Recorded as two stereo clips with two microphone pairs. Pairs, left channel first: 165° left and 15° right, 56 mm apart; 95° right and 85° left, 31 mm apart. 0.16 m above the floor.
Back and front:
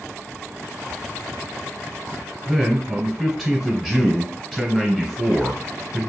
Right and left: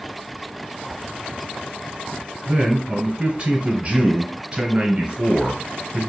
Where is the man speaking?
90° left, 1.4 m.